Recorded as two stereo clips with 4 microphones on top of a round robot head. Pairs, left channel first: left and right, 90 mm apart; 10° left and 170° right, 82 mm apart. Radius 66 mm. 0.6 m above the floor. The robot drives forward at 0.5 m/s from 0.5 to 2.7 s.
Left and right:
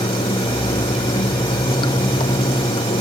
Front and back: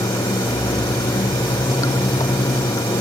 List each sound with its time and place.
0.0 s running water: 55° left